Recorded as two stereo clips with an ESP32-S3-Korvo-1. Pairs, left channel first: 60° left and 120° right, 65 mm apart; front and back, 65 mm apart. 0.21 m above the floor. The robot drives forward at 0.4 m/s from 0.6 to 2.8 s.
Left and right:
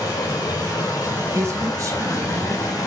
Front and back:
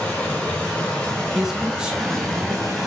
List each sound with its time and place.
0.0 s running water: 70° left, 3.5 m; by 2.9 s 90° left, 3 m
1.4 s a man speaking: 95° right, 1.8 m; by 2.8 s 120° right, 1.9 m